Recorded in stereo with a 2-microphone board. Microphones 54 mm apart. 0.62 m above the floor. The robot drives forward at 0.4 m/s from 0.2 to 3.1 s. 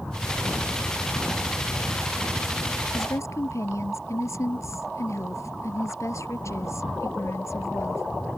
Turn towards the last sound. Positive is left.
turn(degrees=65)  # may be behind; listen again after turning